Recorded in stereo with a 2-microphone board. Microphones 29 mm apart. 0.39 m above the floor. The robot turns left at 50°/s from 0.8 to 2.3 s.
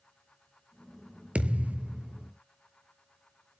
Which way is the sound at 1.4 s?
50° right.